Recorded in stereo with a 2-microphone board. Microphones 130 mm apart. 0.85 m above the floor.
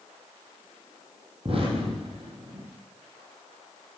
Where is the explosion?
50° right (ahead or behind), 9 m.